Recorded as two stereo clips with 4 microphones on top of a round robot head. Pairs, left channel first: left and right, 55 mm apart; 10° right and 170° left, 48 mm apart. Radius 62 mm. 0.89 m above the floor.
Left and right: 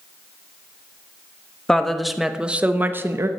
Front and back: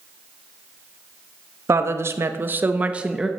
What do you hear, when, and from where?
1.7 s a woman speaking: 170° left, 1.6 m; by 3.3 s 110° right, 1.4 m